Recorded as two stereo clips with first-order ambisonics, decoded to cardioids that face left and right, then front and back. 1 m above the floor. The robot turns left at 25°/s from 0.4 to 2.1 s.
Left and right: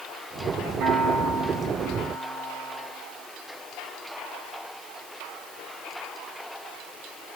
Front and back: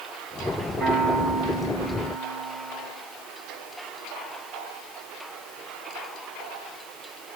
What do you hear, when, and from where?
0.8 s a piano: 130° right, 3 m; by 2.9 s 160° right, 3 m